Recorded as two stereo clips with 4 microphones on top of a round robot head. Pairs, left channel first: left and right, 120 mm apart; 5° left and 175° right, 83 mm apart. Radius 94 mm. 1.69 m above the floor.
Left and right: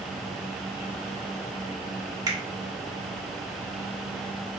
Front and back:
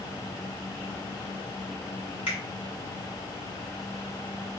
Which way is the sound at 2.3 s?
30° right.